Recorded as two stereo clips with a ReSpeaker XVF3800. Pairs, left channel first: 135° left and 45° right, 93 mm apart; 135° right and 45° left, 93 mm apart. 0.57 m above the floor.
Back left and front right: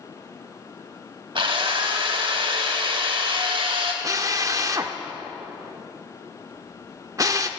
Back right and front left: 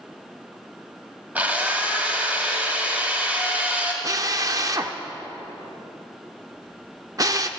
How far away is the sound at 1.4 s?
About 2.5 m.